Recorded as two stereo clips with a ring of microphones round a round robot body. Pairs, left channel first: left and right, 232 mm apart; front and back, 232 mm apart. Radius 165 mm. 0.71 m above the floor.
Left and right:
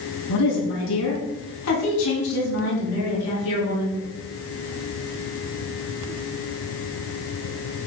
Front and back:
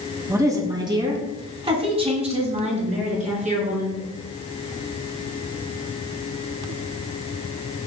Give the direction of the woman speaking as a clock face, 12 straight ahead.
9 o'clock.